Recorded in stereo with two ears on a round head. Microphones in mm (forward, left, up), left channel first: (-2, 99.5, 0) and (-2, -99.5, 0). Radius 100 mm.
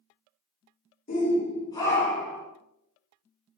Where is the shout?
40° left (ahead or behind), 1.5 m; by 2.5 s 10° right (ahead or behind), 1.1 m.